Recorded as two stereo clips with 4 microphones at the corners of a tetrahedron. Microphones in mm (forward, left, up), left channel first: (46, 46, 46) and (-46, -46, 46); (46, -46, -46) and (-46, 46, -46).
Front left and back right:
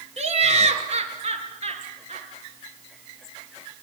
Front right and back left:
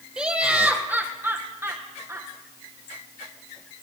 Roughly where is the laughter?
Behind right.